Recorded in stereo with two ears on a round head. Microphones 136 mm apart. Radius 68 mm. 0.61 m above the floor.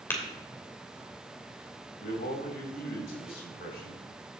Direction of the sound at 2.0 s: 70° left (ahead or behind).